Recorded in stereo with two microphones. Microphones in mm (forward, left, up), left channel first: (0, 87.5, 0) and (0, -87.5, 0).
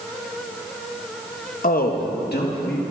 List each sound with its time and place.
1.6 s a man speaking: 55° left (ahead or behind), 0.7 m; by 2.8 s 75° left (ahead or behind), 1.7 m